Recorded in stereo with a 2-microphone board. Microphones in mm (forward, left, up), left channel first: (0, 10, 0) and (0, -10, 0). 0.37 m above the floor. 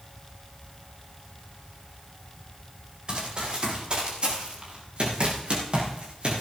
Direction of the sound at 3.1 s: 45° right (ahead or behind).